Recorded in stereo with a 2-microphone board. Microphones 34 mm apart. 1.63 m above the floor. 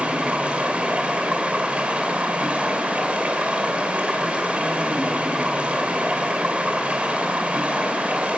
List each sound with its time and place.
0.0 s running water: 35° right (ahead or behind), 3 m